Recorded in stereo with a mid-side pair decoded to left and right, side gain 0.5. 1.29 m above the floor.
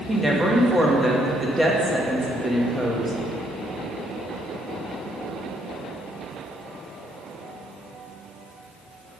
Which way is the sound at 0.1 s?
10° right.